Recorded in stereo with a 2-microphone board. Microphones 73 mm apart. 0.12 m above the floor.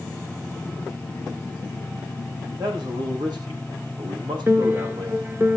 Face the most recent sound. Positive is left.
turn(degrees=-35)  # may be behind; listen again after turning